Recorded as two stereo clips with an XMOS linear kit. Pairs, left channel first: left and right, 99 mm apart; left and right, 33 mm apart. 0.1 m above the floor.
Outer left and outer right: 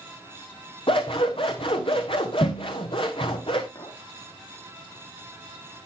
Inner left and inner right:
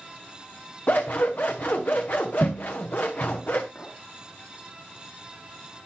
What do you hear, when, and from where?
0.9 s scissors: 60° left (ahead or behind), 1.9 m
3.8 s a clink: 50° left (ahead or behind), 3.5 m